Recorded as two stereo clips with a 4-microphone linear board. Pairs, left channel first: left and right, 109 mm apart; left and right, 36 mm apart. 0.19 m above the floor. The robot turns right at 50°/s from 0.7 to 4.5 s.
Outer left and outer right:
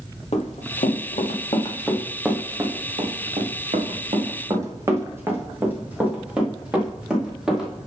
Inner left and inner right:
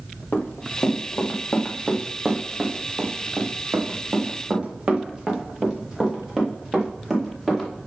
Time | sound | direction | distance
0.3 | running footsteps | 70° left (ahead or behind) | 2.5 m